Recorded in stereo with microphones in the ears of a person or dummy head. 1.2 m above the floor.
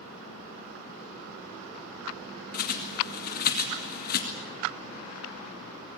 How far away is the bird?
About 2 m.